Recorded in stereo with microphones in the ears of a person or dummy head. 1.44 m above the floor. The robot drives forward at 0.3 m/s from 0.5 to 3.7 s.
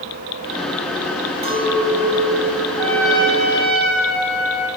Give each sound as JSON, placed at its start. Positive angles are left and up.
{"t": 1.4, "sound": "a clink", "side_deg": -20, "distance_m": 7.5}
{"t": 2.8, "sound": "a trumpet", "side_deg": 0, "distance_m": 5.0}